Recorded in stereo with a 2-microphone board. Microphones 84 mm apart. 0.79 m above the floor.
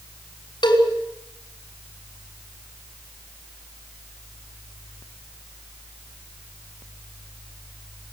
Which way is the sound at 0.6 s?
65° left (ahead or behind).